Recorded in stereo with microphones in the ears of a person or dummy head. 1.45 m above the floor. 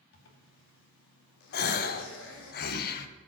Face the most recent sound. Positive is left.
turn(degrees=60)  # may be behind; listen again after turning